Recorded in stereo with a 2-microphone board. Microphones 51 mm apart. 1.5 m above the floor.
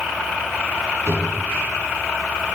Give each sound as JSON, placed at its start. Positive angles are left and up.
{"t": 1.1, "sound": "a drawer", "side_deg": 80, "distance_m": 5.0}